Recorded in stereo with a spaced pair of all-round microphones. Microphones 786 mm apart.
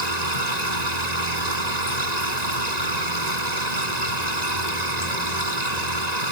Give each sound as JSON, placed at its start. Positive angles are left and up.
{"t": 0.0, "sound": "a machine running", "side_deg": -65}